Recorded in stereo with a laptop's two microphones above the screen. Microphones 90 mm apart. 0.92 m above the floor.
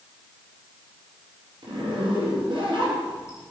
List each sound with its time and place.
1.6 s a zipper: 60° right (ahead or behind), 3.5 m